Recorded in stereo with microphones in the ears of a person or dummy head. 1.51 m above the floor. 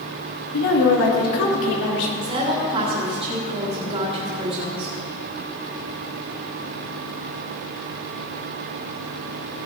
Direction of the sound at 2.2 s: 30° right (ahead or behind).